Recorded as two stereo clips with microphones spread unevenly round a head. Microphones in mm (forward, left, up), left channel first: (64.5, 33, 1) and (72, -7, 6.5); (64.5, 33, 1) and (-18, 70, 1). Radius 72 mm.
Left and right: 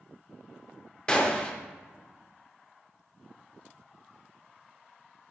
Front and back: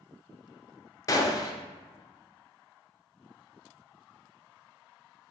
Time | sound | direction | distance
1.1 | a gunshot | 30° left | 0.6 m